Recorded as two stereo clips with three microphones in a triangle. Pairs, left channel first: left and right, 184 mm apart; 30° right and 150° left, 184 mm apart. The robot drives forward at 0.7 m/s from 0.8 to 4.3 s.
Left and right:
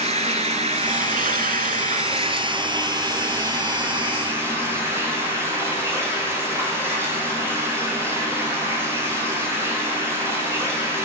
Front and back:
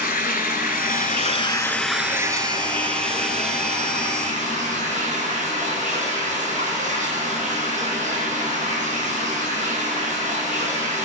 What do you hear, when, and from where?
0.0 s running water: 45° right, 0.8 m; by 11.1 s 165° right, 2 m